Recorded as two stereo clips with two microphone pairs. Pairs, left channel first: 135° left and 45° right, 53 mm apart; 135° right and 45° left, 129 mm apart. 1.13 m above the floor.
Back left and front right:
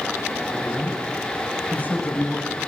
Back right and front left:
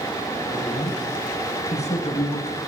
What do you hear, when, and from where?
0.5 s a man speaking: 165° right, 9 m; by 2.6 s 160° right, 8.5 m